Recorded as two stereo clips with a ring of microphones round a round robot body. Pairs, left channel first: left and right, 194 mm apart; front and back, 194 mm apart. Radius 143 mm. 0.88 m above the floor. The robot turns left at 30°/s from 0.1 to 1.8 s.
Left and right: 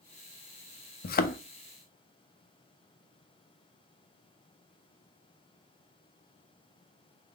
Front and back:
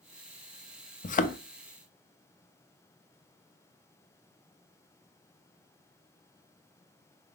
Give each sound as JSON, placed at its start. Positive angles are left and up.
{"t": 1.0, "sound": "a thud", "azimuth_deg": 50, "distance_m": 0.6}